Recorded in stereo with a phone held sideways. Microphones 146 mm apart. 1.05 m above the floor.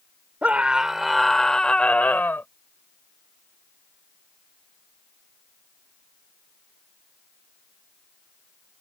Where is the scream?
10° right (ahead or behind); by 2.5 s 15° left (ahead or behind).